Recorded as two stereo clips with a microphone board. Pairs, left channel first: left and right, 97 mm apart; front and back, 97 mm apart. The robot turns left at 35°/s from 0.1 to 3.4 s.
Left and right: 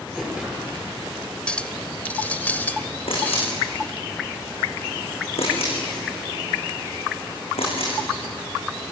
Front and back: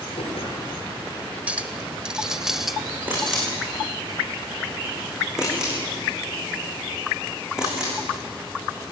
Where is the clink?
140° left, 0.9 m; by 3.5 s 75° left, 0.9 m.